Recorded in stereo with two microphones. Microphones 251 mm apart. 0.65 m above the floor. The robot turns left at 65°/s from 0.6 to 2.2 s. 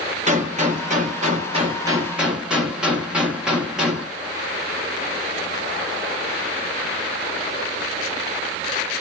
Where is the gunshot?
70° right, 1.0 m; by 4.1 s 175° right, 1.0 m.